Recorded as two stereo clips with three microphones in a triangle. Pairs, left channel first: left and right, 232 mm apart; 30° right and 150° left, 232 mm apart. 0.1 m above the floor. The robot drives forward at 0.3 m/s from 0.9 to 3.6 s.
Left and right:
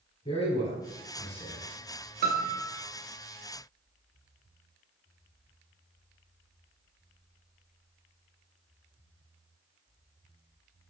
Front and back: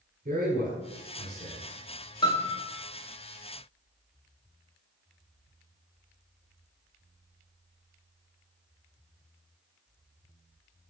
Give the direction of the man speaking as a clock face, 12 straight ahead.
7 o'clock.